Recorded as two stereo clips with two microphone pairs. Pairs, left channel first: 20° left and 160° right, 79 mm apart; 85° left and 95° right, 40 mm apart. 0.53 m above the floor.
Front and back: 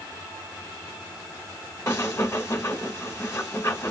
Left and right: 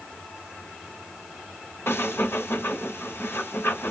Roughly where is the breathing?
Left.